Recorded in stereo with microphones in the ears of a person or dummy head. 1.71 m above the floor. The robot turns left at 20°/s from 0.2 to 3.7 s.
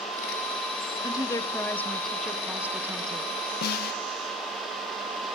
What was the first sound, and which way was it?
A woman speaking, 25° left.